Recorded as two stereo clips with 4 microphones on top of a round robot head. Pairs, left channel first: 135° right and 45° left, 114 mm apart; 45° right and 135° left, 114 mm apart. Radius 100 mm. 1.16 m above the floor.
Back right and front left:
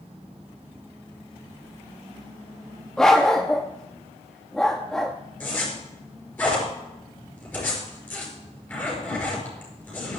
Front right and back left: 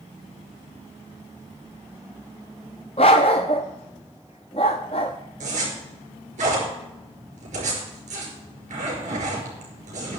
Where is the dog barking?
55° right, 0.6 m.